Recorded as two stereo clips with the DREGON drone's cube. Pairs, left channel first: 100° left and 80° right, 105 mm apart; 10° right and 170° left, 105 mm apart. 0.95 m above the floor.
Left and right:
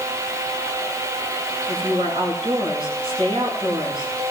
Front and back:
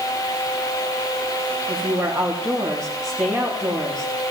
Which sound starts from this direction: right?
A woman speaking, at 1.7 s.